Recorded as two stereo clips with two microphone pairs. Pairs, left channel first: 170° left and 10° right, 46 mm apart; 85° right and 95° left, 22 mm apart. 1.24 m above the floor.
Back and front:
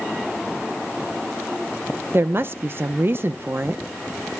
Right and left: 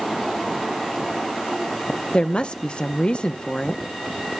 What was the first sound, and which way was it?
A woman speaking, 40° right.